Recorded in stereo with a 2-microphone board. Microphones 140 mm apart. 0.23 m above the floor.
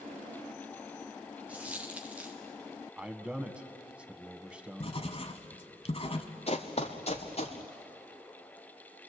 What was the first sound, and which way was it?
A dropped coin, 10° right (ahead or behind).